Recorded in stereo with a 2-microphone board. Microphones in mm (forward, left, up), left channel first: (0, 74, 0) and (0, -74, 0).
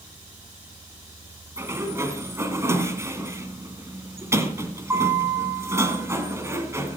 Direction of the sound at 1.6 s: 20° right (ahead or behind).